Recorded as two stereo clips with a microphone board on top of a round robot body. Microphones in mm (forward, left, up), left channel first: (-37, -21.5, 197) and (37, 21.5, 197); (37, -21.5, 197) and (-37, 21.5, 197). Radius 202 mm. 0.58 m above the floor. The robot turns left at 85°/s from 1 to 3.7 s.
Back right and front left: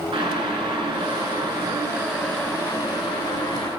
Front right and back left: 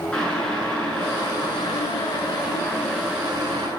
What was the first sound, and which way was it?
Boiling, 50° left.